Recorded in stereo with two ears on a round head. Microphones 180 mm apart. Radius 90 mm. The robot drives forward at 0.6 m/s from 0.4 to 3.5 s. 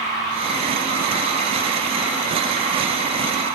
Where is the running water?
60° left (ahead or behind), 2.5 m; by 3.5 s 35° left (ahead or behind), 4 m.